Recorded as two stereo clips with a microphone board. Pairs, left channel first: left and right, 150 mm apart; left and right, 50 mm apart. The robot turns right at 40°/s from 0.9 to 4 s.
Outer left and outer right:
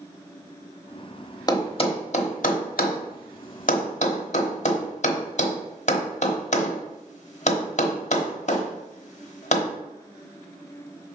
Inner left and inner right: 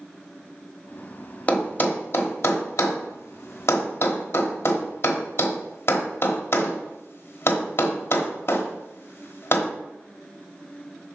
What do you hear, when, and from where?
1.5 s a thud: 25° left (ahead or behind), 1.0 m; by 9.7 s 50° left (ahead or behind), 1.0 m